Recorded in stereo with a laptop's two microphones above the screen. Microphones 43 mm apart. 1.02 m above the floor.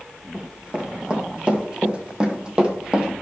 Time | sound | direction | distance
0.3 | running footsteps | 25° right (ahead or behind) | 4 m